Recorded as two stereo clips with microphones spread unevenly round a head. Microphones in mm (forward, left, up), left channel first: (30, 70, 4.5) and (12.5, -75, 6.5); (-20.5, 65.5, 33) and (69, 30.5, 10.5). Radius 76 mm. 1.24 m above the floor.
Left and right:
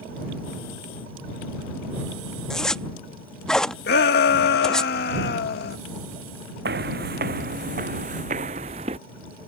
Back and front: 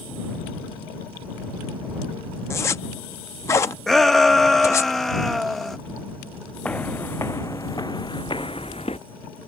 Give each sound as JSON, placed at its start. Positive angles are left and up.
{"t": 2.5, "sound": "a zipper", "azimuth_deg": 165}
{"t": 3.9, "sound": "a shout", "azimuth_deg": 70}
{"t": 6.7, "sound": "footsteps", "azimuth_deg": -125}